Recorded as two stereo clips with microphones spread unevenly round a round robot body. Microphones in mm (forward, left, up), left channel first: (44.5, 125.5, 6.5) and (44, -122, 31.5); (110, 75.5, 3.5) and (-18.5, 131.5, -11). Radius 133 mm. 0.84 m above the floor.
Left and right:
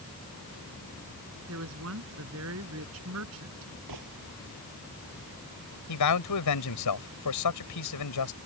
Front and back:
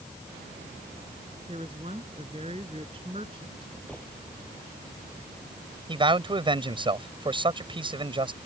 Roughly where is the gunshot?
Right.